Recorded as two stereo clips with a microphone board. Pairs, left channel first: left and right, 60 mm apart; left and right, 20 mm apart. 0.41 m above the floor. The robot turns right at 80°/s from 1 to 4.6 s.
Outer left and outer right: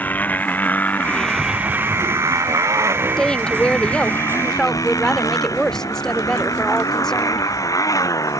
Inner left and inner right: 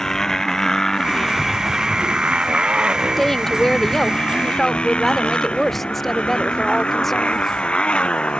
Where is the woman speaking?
10° left (ahead or behind).